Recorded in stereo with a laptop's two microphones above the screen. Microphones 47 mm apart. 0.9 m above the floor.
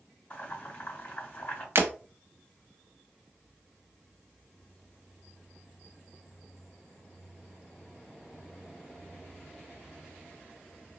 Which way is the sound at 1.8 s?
60° right (ahead or behind).